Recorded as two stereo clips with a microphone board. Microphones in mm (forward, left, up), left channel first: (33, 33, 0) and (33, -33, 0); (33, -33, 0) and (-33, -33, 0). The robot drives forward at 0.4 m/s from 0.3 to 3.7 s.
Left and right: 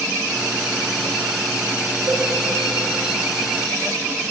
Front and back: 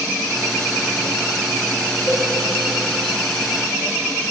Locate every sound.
2.1 s a cowbell: 70° right, 0.9 m; by 2.2 s 75° right, 0.9 m